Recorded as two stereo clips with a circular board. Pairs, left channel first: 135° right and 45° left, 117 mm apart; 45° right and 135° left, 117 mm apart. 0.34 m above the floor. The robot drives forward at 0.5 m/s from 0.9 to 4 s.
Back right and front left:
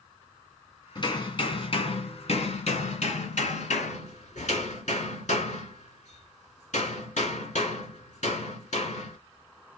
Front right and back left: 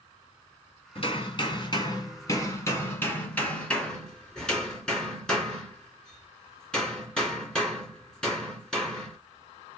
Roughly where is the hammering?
Right.